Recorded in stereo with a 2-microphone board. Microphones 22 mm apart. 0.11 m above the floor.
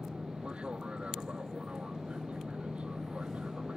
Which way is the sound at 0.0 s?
50° right (ahead or behind).